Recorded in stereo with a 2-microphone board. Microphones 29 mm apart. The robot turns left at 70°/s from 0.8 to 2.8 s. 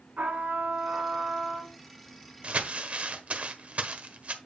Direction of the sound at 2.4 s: 50° right (ahead or behind).